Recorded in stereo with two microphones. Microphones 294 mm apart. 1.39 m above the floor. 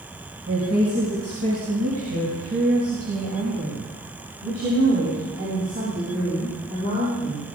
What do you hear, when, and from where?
0.5 s a woman speaking: 80° right, 6 m; by 7.5 s 50° right (ahead or behind), 9.5 m